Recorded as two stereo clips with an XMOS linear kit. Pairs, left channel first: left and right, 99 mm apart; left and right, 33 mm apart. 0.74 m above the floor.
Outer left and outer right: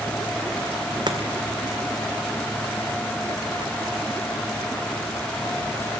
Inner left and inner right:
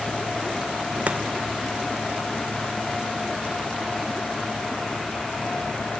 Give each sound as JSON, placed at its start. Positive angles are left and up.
{"t": 1.1, "sound": "chopping", "side_deg": -45, "distance_m": 1.8}